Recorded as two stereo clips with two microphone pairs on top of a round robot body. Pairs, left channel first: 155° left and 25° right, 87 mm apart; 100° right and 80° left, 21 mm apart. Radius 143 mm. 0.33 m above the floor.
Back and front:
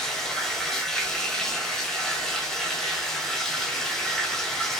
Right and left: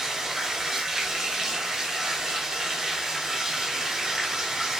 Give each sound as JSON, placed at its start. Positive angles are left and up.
{"t": 0.0, "sound": "running water", "azimuth_deg": 50, "distance_m": 1.0}